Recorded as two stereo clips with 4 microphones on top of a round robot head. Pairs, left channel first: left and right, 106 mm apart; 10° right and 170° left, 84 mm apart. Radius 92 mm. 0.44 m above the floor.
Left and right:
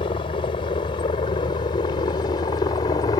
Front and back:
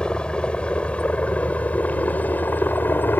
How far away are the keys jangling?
No keys jangling in this recording.